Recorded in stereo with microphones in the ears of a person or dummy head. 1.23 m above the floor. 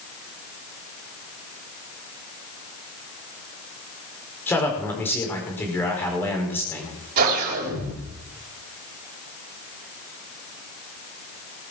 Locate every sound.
4.5 s a man speaking: 10° left (ahead or behind), 4.5 m
7.2 s a whoosh: 50° right (ahead or behind), 3.5 m